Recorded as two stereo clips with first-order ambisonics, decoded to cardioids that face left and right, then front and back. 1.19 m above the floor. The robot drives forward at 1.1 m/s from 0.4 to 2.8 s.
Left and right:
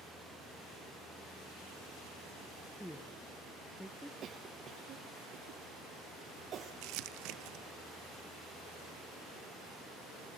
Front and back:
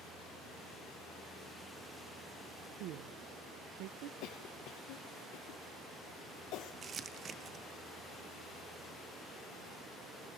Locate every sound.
2.8 s a woman speaking: 175° left, 0.7 m
4.2 s a cough: 30° right, 0.9 m
6.8 s crumpling: 115° right, 0.6 m